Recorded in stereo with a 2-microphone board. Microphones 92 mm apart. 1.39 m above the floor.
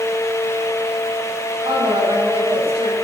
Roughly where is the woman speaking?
Right.